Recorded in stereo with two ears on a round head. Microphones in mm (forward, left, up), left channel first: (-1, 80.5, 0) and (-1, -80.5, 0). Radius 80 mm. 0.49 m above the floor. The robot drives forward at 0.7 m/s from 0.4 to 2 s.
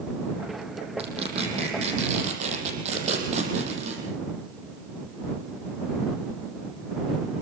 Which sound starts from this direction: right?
Tearing paper, at 1.0 s.